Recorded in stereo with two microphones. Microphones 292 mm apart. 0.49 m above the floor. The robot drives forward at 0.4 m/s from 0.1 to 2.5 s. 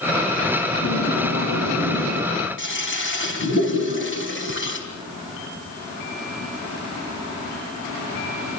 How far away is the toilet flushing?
About 4 m.